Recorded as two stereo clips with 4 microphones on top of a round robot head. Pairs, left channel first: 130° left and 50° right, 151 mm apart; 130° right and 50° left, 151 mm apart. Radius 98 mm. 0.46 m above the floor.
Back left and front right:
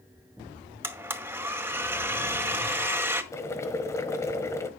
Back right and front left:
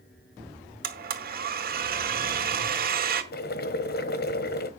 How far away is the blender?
About 2 m.